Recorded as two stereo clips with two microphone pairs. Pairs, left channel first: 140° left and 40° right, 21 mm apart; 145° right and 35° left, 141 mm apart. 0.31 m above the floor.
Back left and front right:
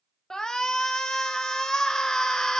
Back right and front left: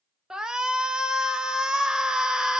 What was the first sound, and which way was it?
A shout, 115° left.